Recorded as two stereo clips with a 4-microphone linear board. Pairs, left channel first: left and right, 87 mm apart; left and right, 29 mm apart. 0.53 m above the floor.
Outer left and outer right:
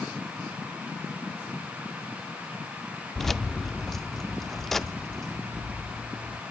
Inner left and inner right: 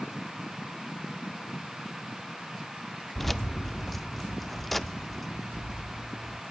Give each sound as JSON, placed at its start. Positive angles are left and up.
{"t": 3.1, "sound": "keys jangling", "side_deg": 5, "distance_m": 0.5}